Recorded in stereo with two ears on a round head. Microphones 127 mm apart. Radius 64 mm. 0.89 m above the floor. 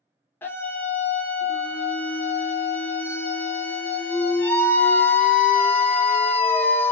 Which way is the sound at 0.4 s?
15° left (ahead or behind).